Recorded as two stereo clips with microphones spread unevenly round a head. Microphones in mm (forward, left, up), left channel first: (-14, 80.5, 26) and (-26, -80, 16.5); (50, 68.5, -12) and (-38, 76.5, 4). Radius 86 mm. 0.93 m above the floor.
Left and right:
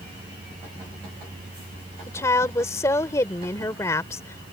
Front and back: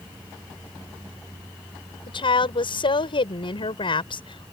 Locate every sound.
2.1 s a woman speaking: 10° left